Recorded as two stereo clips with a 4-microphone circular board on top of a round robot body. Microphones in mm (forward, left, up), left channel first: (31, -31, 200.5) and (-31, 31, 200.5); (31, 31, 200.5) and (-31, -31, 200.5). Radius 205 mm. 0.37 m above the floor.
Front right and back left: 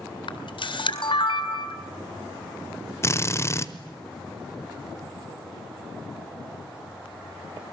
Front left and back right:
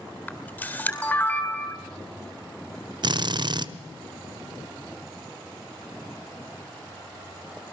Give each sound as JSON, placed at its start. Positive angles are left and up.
{"t": 0.3, "sound": "a camera shutter", "azimuth_deg": -30, "distance_m": 4.0}
{"t": 3.0, "sound": "a drill", "azimuth_deg": -105, "distance_m": 1.3}